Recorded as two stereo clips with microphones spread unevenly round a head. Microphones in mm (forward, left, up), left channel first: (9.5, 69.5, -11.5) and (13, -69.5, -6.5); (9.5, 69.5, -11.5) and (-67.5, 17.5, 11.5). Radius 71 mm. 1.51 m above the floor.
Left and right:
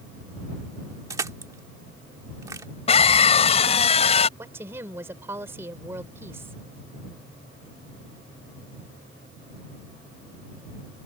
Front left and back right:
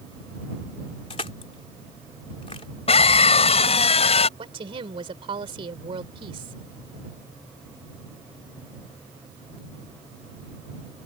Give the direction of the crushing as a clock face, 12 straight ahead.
1 o'clock.